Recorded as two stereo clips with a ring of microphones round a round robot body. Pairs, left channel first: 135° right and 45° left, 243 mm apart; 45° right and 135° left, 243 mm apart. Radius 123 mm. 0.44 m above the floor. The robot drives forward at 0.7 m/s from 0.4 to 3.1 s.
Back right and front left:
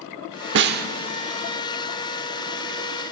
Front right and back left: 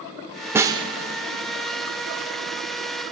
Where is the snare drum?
55° left, 0.9 m; by 0.9 s 75° left, 0.8 m.